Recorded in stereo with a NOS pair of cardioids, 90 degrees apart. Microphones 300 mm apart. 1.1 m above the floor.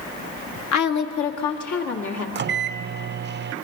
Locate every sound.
0.7 s a woman speaking: 65° left, 1.4 m; by 2.2 s 70° left, 2.5 m
2.4 s a microwave: 35° right, 0.5 m